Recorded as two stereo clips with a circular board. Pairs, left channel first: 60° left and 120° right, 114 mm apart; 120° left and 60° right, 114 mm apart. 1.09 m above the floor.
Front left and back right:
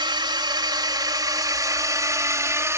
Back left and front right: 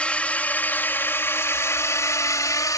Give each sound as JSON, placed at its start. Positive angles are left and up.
{"t": 0.0, "sound": "a drone", "azimuth_deg": -160}